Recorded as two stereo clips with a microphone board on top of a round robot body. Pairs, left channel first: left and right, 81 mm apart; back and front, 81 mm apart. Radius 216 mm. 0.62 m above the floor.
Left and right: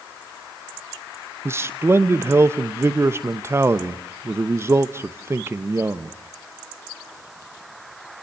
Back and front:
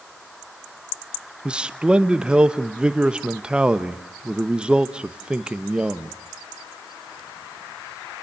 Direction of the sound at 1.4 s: 70° right.